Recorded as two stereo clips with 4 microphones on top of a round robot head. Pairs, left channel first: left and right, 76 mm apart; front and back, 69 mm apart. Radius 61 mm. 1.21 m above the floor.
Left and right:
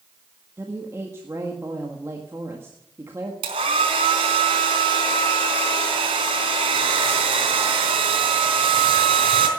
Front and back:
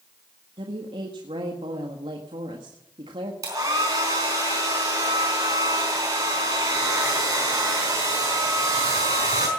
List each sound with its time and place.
0.6 s a woman speaking: 155° right, 1.6 m
3.4 s a hair dryer: 120° right, 4 m